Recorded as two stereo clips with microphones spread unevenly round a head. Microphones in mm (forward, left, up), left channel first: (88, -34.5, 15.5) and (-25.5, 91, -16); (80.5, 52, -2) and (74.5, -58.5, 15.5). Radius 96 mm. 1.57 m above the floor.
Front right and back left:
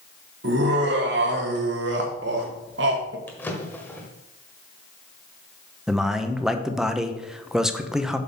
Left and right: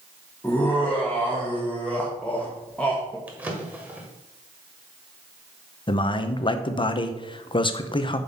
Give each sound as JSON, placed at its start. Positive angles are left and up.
{"t": 0.4, "sound": "laughter", "azimuth_deg": 170, "distance_m": 1.4}
{"t": 3.3, "sound": "a drawer", "azimuth_deg": -75, "distance_m": 1.4}
{"t": 5.9, "sound": "a man speaking", "azimuth_deg": 40, "distance_m": 0.9}